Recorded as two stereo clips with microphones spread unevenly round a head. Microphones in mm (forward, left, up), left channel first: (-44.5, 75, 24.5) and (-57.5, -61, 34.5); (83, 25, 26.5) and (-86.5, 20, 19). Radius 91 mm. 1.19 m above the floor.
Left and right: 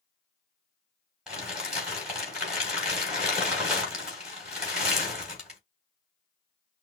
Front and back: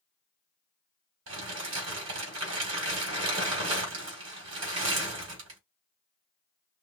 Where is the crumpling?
Straight behind, 3 m.